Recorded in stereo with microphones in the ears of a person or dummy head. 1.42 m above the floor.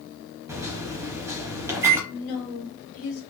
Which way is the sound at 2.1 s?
50° left (ahead or behind).